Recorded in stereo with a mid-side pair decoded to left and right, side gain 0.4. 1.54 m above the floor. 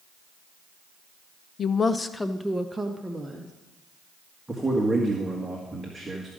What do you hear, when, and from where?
1.6 s a woman speaking: 55° left, 0.7 m; by 3.5 s 20° right, 1.4 m
4.5 s a man speaking: 10° right, 1.8 m